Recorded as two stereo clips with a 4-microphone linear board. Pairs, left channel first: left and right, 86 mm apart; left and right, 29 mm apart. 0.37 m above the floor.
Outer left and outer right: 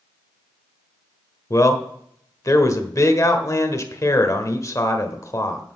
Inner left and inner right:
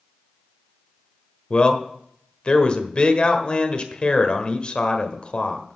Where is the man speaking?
35° left (ahead or behind), 1.2 m.